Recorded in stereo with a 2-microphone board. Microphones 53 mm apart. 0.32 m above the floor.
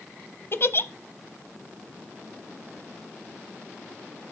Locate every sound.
0.5 s a giggle: 45° left (ahead or behind), 0.6 m